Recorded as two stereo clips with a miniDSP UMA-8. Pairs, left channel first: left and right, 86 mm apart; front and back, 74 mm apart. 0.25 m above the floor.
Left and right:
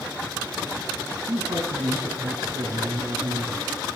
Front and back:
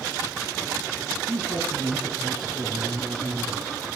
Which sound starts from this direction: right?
A man speaking, at 1.3 s.